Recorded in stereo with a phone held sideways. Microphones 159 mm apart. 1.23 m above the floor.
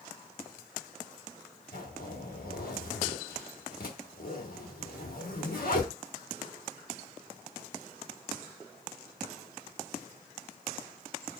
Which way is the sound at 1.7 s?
65° left (ahead or behind).